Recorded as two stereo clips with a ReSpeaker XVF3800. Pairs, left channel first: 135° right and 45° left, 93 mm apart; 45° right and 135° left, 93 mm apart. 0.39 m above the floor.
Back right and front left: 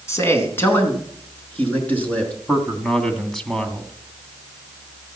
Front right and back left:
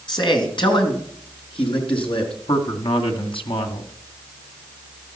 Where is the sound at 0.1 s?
75° right, 3.5 m; by 2.3 s 60° right, 5 m.